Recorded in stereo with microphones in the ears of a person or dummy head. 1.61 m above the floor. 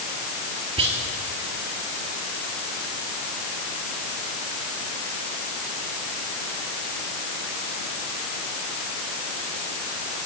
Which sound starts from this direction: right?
Whispering, at 0.8 s.